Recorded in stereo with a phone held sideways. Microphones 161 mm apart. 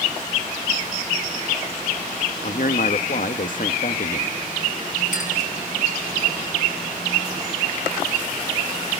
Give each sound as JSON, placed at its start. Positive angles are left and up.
{"t": 2.4, "sound": "a man speaking", "side_deg": 60, "distance_m": 0.9}
{"t": 5.1, "sound": "a clink", "side_deg": 55, "distance_m": 7.0}